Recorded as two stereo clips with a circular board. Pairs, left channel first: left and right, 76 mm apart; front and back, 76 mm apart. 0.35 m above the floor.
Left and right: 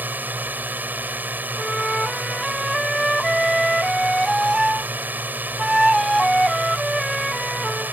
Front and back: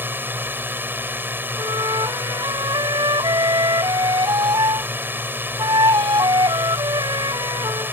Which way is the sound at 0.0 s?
140° right.